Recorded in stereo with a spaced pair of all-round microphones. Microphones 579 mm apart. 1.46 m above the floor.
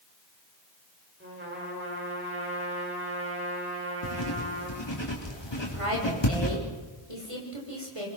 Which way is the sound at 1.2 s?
20° right (ahead or behind).